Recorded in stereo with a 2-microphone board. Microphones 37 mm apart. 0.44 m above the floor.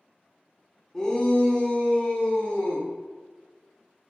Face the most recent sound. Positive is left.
turn(degrees=50)  # may be behind; listen again after turning